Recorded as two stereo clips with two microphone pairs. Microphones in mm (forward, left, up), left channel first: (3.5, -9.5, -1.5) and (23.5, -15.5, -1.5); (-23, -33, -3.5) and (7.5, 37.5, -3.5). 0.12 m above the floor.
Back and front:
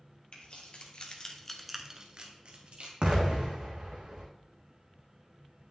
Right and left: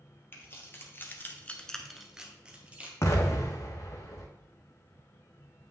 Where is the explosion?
65° right, 1.6 m.